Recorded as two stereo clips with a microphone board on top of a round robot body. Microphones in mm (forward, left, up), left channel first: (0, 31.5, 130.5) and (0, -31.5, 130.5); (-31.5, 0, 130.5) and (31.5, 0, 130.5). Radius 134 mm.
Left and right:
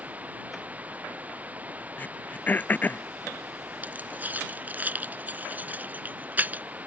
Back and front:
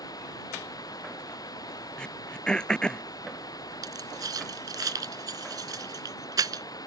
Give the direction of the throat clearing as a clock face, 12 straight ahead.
8 o'clock.